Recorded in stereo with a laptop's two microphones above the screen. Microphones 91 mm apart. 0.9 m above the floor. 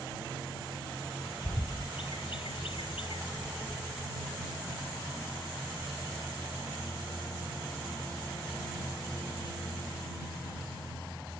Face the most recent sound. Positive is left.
turn(degrees=75)  # may be behind; listen again after turning